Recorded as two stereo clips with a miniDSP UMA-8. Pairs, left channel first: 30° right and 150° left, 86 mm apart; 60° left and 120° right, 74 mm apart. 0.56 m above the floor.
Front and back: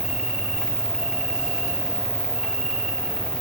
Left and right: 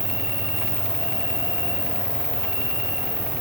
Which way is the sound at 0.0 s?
65° left.